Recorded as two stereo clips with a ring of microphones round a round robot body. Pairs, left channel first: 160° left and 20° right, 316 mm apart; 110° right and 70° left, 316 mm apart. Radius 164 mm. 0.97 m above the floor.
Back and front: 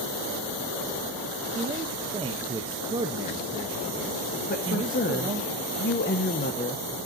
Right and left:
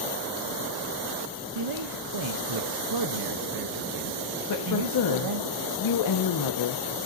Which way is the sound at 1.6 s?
50° left.